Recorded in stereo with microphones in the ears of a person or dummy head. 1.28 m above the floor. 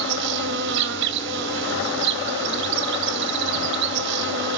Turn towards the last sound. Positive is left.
turn(degrees=-55)  # may be behind; listen again after turning